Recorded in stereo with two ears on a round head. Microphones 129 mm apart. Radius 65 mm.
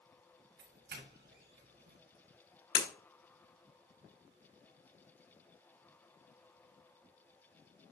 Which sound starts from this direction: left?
Breaking glass, at 2.8 s.